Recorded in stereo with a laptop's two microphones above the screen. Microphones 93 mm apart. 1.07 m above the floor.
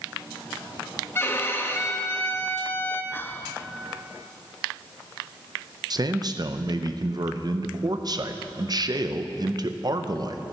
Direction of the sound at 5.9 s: 45° right (ahead or behind).